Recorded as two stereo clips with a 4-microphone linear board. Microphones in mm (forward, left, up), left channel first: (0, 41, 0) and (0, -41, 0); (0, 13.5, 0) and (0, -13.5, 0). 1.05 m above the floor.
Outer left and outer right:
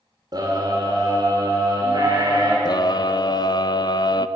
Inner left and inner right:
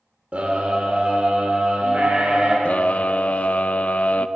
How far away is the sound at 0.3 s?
About 2.5 m.